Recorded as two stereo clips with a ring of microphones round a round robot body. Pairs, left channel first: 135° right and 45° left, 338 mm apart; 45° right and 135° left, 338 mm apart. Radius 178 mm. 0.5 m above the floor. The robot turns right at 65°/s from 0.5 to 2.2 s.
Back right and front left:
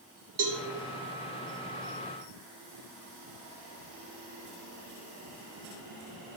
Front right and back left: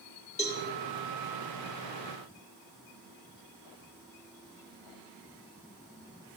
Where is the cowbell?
20° left, 1.8 m; by 0.6 s 25° left, 1.8 m.